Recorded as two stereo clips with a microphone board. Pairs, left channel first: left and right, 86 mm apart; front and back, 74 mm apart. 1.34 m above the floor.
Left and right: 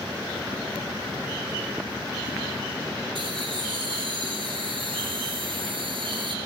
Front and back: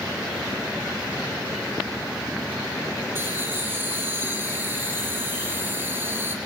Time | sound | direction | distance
3.1 | laughter | 120° right | 3.5 m